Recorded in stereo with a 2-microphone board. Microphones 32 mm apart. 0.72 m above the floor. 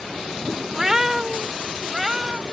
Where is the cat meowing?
10° right (ahead or behind); by 2.4 s 20° right (ahead or behind).